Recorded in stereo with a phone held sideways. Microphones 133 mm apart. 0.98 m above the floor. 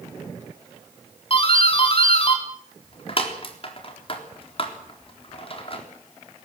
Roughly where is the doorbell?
Left.